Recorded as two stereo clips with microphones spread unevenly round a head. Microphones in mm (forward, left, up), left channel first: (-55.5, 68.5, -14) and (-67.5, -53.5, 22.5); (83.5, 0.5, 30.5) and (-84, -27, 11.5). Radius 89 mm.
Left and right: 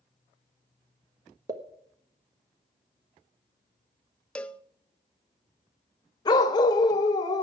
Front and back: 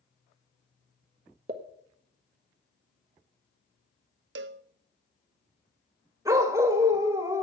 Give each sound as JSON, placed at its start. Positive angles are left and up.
{"t": 1.5, "sound": "a pop", "azimuth_deg": -115, "distance_m": 1.3}
{"t": 4.3, "sound": "a cowbell", "azimuth_deg": 175, "distance_m": 0.5}
{"t": 6.2, "sound": "a dog barking", "azimuth_deg": 130, "distance_m": 1.4}